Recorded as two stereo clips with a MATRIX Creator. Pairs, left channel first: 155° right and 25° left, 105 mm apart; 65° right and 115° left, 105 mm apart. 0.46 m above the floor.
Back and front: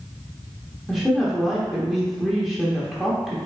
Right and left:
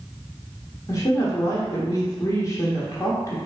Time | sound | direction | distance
0.9 | a woman speaking | 65° right | 0.9 m